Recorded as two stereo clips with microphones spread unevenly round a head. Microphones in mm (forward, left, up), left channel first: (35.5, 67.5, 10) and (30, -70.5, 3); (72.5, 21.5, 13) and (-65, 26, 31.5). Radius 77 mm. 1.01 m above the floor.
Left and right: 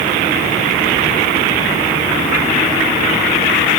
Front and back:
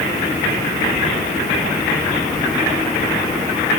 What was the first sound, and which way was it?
Only background noise.